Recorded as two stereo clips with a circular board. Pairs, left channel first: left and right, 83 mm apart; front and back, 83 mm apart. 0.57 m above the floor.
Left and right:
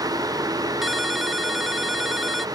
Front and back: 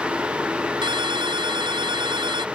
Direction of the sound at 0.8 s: Straight behind.